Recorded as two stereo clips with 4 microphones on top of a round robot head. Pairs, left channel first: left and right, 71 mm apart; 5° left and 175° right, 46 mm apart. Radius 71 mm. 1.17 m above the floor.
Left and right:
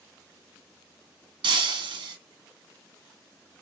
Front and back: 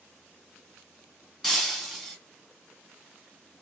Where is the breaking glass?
90° right, 1.4 m.